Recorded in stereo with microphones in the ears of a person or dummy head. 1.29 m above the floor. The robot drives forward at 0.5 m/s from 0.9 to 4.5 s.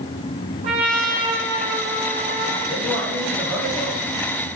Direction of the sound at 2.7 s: 5° left (ahead or behind).